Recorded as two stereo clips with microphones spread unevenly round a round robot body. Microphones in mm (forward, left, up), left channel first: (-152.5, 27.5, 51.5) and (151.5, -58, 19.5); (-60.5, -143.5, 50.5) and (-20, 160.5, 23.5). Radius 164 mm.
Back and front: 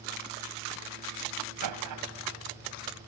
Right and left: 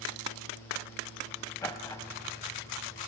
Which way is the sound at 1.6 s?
15° right.